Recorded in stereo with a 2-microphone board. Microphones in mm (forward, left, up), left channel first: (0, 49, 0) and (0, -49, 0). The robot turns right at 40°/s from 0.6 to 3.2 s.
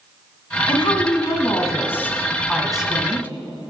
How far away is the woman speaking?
About 1.6 m.